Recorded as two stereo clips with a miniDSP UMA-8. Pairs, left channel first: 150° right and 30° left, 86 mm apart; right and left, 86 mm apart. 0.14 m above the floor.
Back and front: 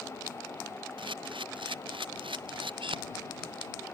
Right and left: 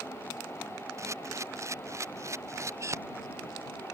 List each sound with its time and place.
1.0 s a camera shutter: 35° left